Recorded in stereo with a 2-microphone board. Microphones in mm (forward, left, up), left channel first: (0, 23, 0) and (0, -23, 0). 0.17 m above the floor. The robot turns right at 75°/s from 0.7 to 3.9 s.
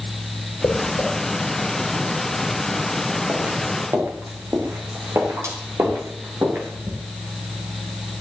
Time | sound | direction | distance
0.6 | footsteps | 85° left | 5.5 m